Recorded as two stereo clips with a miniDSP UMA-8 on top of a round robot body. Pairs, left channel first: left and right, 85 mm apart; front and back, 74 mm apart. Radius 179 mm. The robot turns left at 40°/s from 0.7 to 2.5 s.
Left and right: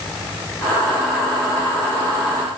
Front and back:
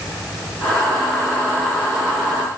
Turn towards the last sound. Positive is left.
No sound to turn to.